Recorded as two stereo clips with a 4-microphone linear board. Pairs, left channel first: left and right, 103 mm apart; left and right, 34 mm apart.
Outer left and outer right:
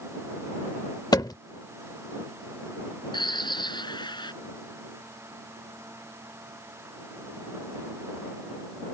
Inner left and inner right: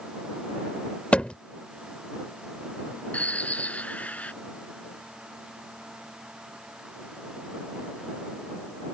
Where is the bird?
50° left (ahead or behind).